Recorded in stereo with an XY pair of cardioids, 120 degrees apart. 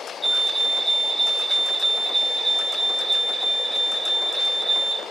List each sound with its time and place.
0.2 s a fire alarm: 5° left, 2 m